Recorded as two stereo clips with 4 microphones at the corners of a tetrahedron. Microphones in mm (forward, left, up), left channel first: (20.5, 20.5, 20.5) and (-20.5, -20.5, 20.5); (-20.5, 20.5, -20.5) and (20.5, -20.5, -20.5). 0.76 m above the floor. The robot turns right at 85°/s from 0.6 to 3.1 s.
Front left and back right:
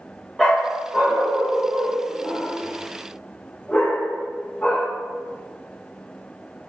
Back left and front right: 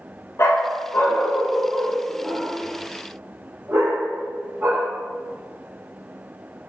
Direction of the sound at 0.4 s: 125° left.